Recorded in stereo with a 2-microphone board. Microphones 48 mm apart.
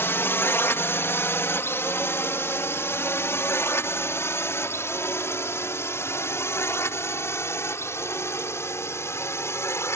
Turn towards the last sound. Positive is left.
turn(degrees=75)  # may be behind; listen again after turning